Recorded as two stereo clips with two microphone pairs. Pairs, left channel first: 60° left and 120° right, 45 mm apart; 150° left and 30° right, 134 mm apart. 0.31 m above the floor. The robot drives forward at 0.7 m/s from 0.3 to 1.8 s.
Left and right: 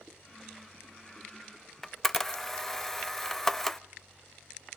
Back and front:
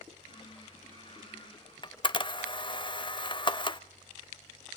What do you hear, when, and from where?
1.8 s a camera shutter: 140° left, 0.5 m